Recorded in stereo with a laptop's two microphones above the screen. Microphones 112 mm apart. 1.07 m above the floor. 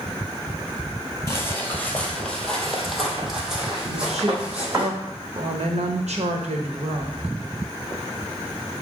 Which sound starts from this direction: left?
Footsteps, at 1.3 s.